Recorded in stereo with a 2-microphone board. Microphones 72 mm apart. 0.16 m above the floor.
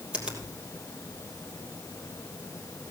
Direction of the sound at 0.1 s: 15° right (ahead or behind).